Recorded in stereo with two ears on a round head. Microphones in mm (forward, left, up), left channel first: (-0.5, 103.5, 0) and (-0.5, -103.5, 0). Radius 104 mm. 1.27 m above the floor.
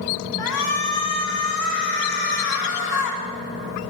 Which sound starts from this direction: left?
A shout, at 0.4 s.